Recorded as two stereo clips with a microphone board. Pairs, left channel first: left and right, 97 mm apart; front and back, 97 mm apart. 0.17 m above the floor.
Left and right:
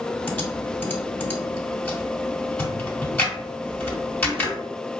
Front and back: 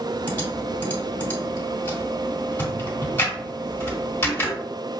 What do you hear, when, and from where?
0.3 s typing on a keyboard: 40° left, 1.8 m